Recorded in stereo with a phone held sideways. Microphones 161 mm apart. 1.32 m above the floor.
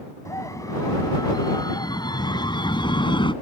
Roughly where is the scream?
Centre.